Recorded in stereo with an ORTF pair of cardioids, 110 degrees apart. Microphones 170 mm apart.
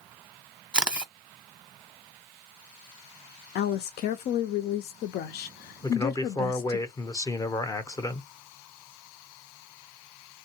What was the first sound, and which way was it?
A camera shutter, 5° right.